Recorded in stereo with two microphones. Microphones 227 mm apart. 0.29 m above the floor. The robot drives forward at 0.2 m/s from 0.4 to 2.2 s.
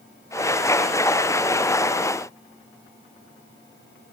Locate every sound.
Only background noise.